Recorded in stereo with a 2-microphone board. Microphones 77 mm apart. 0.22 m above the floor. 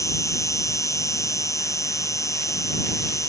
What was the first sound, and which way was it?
An insect, 40° left (ahead or behind).